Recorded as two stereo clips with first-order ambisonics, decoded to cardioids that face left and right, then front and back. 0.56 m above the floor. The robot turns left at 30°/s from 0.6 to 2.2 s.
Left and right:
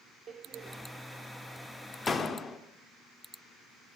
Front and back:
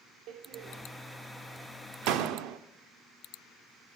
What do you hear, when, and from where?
0.3 s a door slam: 150° right, 0.7 m; by 2.6 s 165° left, 0.7 m